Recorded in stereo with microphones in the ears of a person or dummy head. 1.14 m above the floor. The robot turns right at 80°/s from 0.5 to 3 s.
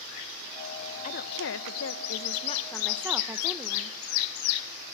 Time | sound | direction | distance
1.0 | a woman speaking | 40° left | 0.9 m